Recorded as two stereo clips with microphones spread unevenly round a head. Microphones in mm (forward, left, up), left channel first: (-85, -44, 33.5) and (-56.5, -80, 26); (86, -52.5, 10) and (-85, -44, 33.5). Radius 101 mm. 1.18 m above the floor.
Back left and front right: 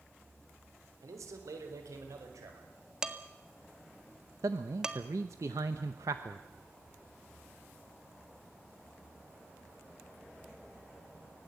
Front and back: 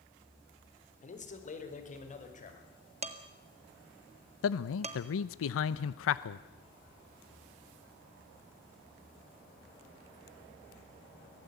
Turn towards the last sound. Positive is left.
turn(degrees=-5)